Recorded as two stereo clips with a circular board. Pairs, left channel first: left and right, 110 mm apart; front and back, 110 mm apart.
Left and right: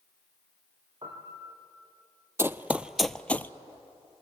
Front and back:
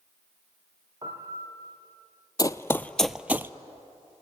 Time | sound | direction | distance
1.0 | a piano | 135° right | 3.5 m
2.4 | running footsteps | 35° right | 0.6 m